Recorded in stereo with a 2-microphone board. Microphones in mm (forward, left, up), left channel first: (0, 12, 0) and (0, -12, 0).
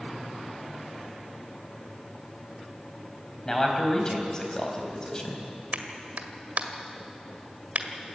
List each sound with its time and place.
3.5 s a man speaking: 25° left (ahead or behind), 4 m
5.7 s a clap: 65° right (ahead or behind), 1.7 m